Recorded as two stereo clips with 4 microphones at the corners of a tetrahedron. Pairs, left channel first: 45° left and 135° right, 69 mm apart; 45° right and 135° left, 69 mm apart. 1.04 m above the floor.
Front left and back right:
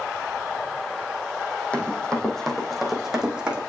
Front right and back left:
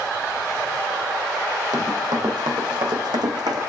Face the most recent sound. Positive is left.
turn(degrees=150)